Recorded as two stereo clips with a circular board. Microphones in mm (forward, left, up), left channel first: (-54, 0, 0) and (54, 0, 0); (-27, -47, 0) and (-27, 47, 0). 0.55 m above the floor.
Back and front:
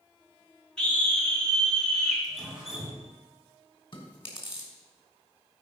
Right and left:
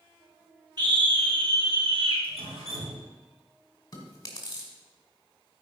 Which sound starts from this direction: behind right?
Chewing, at 3.9 s.